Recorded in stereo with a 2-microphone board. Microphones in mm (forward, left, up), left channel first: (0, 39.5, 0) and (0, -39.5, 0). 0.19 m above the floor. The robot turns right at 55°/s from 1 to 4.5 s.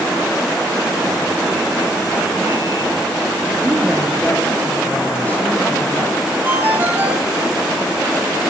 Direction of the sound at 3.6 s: 25° right.